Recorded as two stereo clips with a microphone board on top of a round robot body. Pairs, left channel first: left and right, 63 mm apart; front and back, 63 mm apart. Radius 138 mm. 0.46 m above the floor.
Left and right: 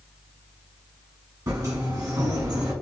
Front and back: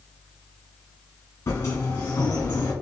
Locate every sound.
1.5 s a sliding door: 55° right, 1.2 m